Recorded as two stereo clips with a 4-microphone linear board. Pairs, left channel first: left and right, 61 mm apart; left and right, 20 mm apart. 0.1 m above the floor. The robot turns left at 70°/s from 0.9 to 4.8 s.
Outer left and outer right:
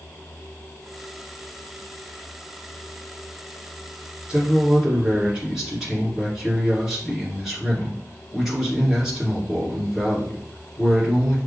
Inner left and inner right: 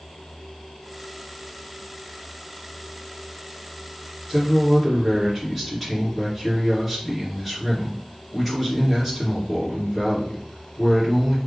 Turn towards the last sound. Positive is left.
turn(degrees=-5)  # may be behind; listen again after turning